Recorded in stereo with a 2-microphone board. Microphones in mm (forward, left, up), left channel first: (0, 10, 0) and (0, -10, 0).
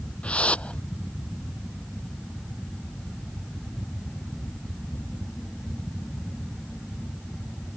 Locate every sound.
0.2 s a whoosh: 80° left